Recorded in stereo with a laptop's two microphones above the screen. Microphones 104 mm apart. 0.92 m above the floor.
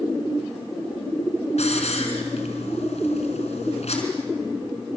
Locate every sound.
1.6 s a hiss: 80° left, 4 m